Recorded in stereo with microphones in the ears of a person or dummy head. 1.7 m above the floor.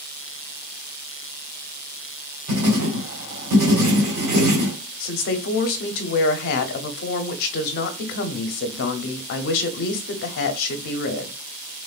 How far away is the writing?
About 1.2 m.